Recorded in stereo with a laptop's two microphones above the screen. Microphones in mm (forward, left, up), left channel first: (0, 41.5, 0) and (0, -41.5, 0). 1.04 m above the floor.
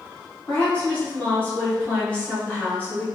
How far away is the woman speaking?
About 1.0 m.